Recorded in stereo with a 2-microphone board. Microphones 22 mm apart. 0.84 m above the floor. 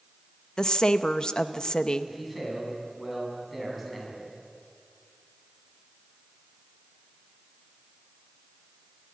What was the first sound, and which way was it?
A woman speaking, 35° left (ahead or behind).